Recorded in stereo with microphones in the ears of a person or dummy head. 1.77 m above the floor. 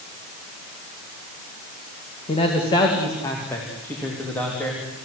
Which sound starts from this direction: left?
A man speaking, at 2.3 s.